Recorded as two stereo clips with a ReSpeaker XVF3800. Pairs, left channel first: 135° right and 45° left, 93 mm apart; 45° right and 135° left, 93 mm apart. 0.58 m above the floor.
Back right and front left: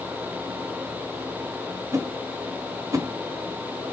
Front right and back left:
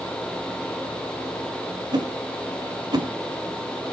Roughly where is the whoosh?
Left.